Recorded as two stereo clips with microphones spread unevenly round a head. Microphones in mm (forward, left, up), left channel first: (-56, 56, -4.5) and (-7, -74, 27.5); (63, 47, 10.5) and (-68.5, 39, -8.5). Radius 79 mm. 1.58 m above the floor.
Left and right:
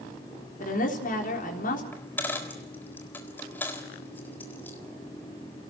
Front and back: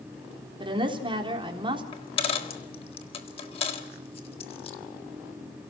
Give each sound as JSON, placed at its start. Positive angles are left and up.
{"t": 0.6, "sound": "a woman speaking", "azimuth_deg": 130, "distance_m": 3.5}
{"t": 1.9, "sound": "a dropped coin", "azimuth_deg": 25, "distance_m": 1.7}